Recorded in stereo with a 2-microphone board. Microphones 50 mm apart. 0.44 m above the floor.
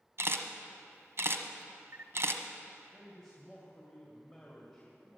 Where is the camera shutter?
55° right (ahead or behind), 1.0 m.